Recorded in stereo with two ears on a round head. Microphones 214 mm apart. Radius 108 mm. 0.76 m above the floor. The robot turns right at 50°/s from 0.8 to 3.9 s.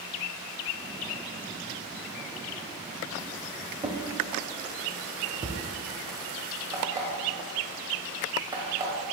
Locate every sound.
3.8 s a drawer: 15° right (ahead or behind), 0.6 m; by 5.6 s 20° right (ahead or behind), 0.6 m
6.7 s an alarm clock: 15° right (ahead or behind), 1.5 m